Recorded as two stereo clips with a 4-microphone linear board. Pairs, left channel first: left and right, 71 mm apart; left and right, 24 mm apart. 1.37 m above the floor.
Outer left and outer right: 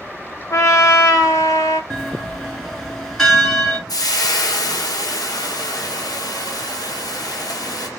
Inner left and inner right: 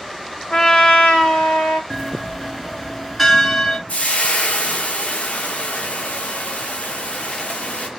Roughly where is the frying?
Left.